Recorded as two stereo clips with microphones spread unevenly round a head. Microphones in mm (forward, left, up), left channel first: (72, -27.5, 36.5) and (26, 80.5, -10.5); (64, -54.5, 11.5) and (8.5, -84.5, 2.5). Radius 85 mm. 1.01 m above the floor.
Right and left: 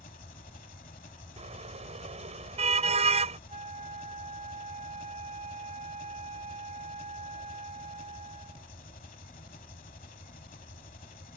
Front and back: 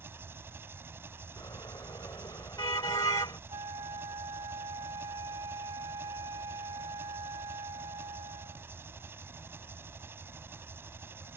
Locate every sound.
0.0 s an engine running: 100° right
1.4 s a car horn: 80° left
3.5 s a flute: 170° left